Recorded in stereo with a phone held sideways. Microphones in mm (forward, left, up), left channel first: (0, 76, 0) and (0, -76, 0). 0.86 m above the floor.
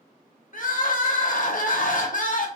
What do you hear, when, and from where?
0.5 s crying: 60° left (ahead or behind), 0.5 m